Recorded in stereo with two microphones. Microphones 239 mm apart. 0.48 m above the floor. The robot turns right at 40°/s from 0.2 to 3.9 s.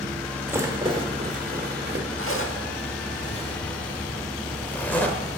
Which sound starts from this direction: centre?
A rattle, at 0.5 s.